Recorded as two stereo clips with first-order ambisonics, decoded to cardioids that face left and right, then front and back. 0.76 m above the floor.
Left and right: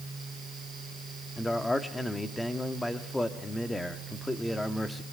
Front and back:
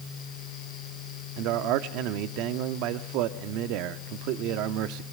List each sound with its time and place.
1.4 s a man speaking: 170° left, 1.3 m